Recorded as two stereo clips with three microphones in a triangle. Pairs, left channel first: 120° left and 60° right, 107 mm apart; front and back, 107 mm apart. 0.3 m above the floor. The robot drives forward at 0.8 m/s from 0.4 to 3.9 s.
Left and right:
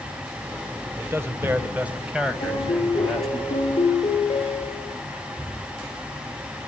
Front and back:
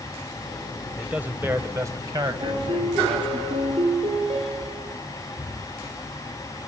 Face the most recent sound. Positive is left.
turn(degrees=165)